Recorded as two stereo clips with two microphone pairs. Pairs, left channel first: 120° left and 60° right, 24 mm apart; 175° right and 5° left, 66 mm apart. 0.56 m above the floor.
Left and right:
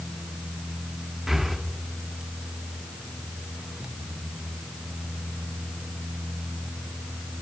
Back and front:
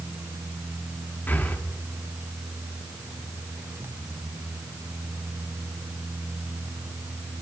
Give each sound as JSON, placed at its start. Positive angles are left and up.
{"t": 1.3, "sound": "breathing", "azimuth_deg": -130, "distance_m": 0.9}